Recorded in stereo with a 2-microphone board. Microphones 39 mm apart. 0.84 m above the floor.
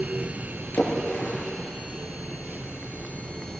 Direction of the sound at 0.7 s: 55° left (ahead or behind).